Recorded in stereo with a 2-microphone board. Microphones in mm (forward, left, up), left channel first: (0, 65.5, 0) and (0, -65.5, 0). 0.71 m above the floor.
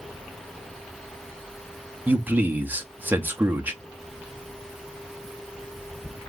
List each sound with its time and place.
2.1 s a man speaking: 15° right (ahead or behind), 0.9 m